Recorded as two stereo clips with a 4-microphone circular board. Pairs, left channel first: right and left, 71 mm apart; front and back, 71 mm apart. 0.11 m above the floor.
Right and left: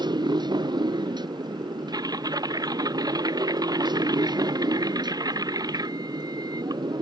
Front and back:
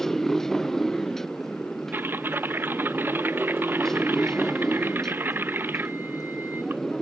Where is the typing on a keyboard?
120° left.